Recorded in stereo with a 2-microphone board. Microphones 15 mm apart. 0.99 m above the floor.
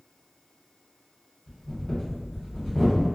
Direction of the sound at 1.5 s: 45° left (ahead or behind).